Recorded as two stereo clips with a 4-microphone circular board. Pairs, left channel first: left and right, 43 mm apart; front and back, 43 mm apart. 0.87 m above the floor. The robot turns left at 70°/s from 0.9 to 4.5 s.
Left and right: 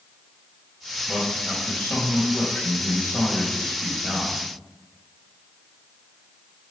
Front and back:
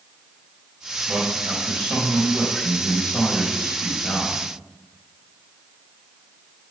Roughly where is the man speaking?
Behind.